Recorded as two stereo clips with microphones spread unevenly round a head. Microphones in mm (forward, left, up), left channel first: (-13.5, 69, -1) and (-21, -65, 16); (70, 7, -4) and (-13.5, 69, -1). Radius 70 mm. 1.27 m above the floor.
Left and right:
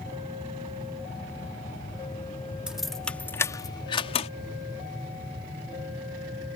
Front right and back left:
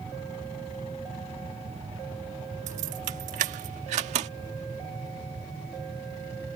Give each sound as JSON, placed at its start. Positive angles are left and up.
{"t": 2.7, "sound": "keys jangling", "azimuth_deg": -175}